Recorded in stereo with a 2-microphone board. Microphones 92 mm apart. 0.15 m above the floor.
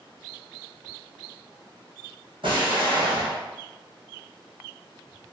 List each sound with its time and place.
2.4 s an explosion: 60° right (ahead or behind), 1.8 m